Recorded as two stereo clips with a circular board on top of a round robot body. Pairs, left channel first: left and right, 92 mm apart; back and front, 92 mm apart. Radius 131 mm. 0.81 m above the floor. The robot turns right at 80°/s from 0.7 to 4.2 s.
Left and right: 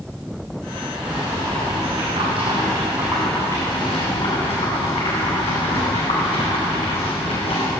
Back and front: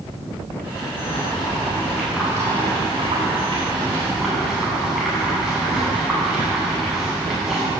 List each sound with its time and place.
1.0 s boiling: 170° right, 9.5 m; by 7.7 s 85° left, 9.5 m